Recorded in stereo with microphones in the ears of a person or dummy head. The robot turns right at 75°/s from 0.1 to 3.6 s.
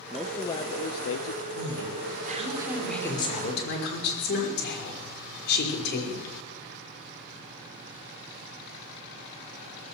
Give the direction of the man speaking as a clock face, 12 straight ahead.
12 o'clock.